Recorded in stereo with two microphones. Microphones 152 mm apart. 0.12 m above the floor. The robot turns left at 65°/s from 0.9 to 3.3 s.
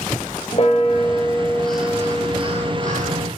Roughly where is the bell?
Ahead left.